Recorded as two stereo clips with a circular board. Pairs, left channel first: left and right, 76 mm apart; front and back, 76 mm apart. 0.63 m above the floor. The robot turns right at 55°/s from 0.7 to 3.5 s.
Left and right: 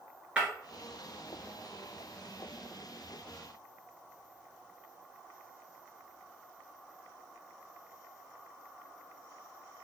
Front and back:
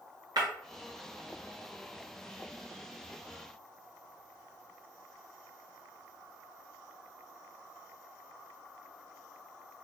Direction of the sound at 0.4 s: 165° right.